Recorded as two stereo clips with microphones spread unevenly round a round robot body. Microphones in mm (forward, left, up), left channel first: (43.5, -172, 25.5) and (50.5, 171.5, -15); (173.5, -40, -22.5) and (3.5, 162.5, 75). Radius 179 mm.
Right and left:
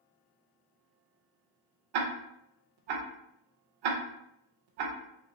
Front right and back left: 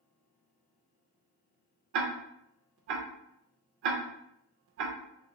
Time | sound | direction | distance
1.9 | ticking | 115° left | 0.5 m